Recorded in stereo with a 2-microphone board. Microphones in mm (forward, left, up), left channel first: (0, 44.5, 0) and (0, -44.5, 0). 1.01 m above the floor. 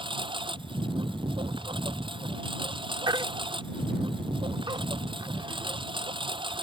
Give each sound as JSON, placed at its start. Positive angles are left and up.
{"t": 0.0, "sound": "a lawn mower", "side_deg": -65}
{"t": 3.1, "sound": "a baby crying", "side_deg": -55}